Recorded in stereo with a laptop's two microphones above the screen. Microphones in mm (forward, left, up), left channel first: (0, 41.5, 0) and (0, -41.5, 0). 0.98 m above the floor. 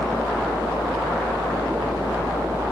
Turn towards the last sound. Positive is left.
turn(degrees=80)